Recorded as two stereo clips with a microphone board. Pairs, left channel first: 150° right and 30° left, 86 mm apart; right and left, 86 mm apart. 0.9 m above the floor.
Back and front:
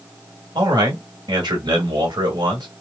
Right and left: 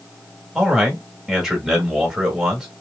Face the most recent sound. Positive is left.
turn(degrees=5)